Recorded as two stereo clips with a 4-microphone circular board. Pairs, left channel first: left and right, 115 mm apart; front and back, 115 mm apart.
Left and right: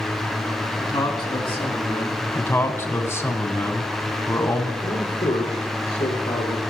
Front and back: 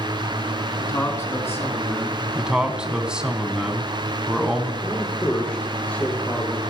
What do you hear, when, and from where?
0.8 s a man speaking: 50° left, 1.6 m; by 2.2 s 65° left, 3.5 m
2.4 s a man speaking: 110° left, 1.1 m
4.8 s a man speaking: 70° left, 4.5 m